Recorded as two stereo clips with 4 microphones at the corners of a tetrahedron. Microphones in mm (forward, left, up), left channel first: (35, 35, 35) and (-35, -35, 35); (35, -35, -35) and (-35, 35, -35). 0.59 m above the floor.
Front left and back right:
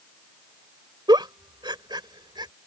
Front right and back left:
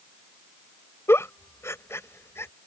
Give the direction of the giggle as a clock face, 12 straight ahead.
3 o'clock.